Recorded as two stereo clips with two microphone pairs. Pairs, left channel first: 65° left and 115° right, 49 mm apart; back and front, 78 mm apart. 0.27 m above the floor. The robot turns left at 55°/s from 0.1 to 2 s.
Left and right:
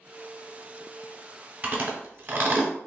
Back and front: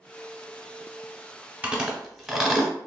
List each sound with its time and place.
1.6 s chewing: 60° right, 0.7 m; by 2.7 s 80° right, 0.7 m